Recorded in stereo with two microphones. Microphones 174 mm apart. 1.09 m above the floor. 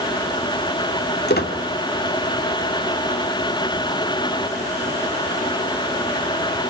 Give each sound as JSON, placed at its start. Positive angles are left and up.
{"t": 1.3, "sound": "a squeak", "side_deg": 65, "distance_m": 2.0}